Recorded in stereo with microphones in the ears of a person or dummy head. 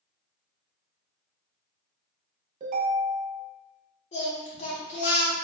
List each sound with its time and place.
2.6 s a ringtone: 40° right (ahead or behind), 0.8 m
4.1 s singing: 30° left (ahead or behind), 0.7 m